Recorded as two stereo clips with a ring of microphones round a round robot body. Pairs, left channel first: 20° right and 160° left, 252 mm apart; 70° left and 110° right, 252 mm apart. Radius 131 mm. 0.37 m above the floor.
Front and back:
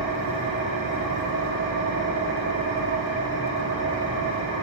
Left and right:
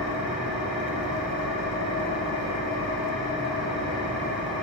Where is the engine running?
160° left, 6.5 m.